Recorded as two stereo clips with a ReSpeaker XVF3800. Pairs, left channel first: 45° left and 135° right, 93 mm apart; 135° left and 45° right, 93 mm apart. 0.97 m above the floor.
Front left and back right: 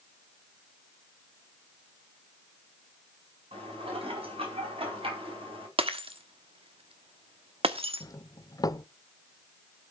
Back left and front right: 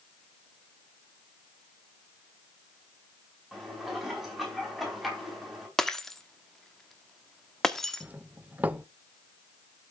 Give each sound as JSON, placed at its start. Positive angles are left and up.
{"t": 3.5, "sound": "dishes clattering", "azimuth_deg": -135, "distance_m": 4.5}
{"t": 5.8, "sound": "breaking glass", "azimuth_deg": -140, "distance_m": 1.3}
{"t": 8.0, "sound": "a doorbell", "azimuth_deg": 20, "distance_m": 0.8}